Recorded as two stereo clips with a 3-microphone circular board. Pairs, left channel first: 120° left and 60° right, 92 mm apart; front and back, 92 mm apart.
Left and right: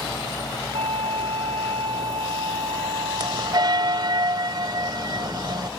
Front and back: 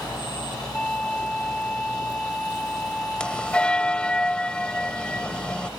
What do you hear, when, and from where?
0.7 s a flute: 80° right
3.2 s a bell: 75° right